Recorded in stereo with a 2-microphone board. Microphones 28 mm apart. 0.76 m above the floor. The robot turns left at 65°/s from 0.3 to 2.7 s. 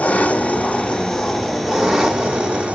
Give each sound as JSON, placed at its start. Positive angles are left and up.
{"t": 0.0, "sound": "an engine running", "azimuth_deg": 70, "distance_m": 1.7}